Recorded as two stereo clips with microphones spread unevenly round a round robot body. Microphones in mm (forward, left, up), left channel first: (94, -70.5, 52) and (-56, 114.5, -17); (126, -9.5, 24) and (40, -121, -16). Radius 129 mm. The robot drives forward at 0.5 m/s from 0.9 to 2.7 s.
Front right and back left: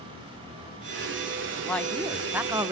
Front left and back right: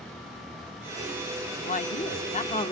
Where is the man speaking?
50° left, 0.9 m; by 2.7 s 110° left, 0.9 m.